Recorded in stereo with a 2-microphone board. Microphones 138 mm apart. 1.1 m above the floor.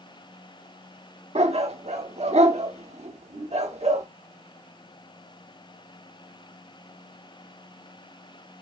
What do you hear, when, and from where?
1.4 s a dog barking: 50° right (ahead or behind), 1.2 m